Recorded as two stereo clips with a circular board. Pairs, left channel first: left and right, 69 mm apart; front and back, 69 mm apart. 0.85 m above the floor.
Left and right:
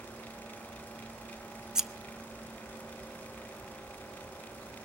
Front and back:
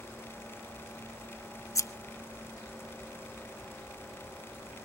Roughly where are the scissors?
Ahead.